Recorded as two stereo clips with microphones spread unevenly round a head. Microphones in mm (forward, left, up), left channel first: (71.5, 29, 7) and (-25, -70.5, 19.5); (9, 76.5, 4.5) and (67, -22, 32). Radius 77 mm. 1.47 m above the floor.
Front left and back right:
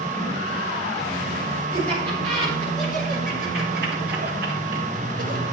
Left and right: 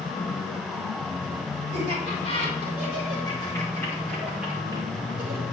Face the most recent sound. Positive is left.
turn(degrees=-100)